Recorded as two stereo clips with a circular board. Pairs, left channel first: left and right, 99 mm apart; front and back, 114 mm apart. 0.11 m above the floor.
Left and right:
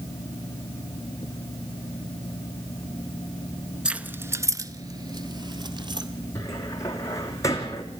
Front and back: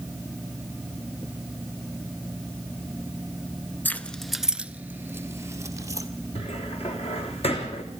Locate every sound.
3.9 s keys jangling: 30° right, 0.8 m; by 6.1 s 125° right, 1.7 m
6.3 s a cupboard door: 30° left, 3 m